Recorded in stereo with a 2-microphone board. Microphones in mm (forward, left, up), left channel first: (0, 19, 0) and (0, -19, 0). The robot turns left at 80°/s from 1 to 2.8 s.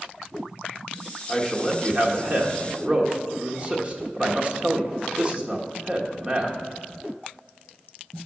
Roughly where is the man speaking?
Ahead.